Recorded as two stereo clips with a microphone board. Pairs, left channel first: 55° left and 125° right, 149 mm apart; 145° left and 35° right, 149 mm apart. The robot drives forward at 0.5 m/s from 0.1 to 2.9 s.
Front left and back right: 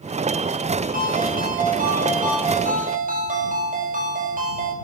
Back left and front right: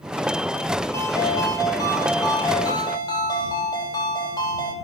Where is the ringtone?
140° right, 3.5 m; by 4.7 s 150° right, 4 m.